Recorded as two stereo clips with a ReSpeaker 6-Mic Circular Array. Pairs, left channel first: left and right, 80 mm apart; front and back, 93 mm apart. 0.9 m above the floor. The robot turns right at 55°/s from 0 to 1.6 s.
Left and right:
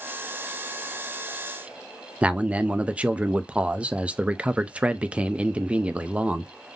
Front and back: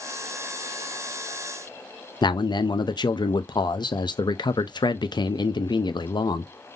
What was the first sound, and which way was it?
A man speaking, 20° right.